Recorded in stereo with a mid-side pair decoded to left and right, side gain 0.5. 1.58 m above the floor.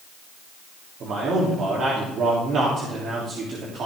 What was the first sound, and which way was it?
A man speaking, 55° right.